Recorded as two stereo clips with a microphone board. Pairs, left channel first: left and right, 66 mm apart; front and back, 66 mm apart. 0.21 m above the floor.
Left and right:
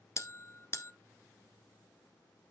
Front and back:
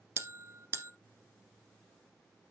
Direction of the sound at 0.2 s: 135° left.